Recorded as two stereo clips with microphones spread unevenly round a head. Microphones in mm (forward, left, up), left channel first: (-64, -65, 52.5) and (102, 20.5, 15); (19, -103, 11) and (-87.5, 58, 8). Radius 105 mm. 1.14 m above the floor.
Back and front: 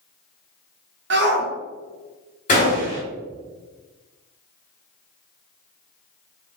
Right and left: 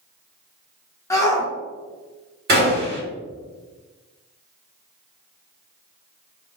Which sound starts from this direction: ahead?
A shout, at 1.1 s.